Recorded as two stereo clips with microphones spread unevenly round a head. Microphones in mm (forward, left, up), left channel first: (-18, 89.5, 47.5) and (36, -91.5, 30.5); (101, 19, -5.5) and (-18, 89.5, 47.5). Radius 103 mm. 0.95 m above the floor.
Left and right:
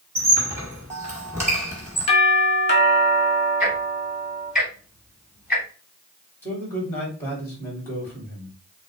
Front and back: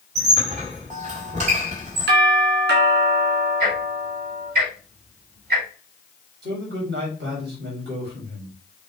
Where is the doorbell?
160° left, 1.7 m.